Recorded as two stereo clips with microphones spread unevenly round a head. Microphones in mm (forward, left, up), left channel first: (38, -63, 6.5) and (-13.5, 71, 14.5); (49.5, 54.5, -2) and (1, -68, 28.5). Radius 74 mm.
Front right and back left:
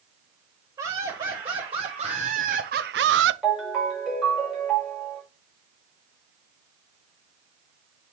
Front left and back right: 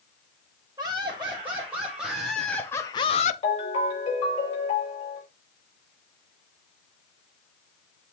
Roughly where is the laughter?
Behind.